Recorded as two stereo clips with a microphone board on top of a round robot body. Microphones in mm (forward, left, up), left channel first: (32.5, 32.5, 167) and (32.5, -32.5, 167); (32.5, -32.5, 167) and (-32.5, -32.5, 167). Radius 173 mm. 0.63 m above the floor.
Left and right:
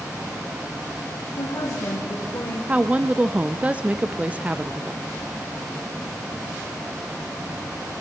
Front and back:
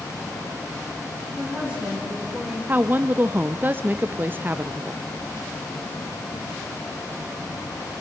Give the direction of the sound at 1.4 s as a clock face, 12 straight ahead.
9 o'clock.